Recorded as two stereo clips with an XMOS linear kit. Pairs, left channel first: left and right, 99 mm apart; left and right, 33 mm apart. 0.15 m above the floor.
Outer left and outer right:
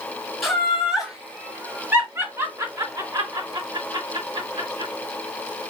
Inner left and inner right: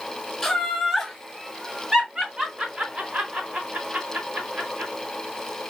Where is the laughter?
Centre (ahead or behind), 3 m; by 4.9 s 60° right (ahead or behind), 3 m.